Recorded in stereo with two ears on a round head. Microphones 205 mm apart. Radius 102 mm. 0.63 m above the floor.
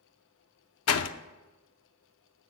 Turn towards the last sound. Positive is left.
turn(degrees=70)  # may be behind; listen again after turning